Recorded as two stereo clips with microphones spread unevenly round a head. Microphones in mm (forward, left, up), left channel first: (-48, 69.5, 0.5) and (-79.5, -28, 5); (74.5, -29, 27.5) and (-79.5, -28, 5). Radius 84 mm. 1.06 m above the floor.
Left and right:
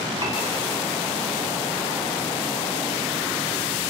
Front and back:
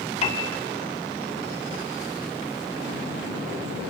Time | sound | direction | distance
0.2 | a piano | 45° right | 2 m